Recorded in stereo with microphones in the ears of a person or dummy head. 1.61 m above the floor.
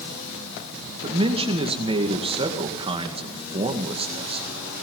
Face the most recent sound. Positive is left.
turn(degrees=-25)  # may be behind; listen again after turning